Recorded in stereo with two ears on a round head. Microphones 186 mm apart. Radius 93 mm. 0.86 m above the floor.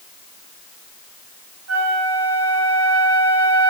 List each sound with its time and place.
1.7 s a flute: 70° right (ahead or behind), 7 m